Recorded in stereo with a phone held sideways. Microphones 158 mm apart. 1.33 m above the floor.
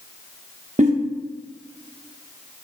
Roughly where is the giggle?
Right.